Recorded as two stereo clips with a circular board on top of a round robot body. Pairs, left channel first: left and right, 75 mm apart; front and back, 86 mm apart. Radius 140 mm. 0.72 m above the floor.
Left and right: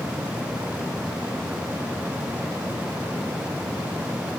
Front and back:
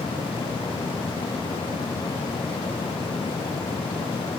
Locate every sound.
Only background noise.